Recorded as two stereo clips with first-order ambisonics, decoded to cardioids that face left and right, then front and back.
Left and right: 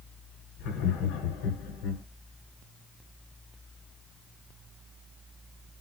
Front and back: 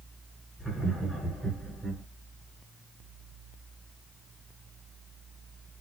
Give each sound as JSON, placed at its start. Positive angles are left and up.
{"t": 0.6, "sound": "laughter", "azimuth_deg": 90, "distance_m": 1.3}